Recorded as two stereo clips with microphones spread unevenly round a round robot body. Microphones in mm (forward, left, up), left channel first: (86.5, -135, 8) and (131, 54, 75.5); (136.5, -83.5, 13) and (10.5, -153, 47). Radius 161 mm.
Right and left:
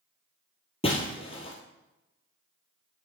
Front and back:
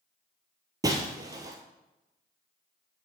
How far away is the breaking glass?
About 1.0 m.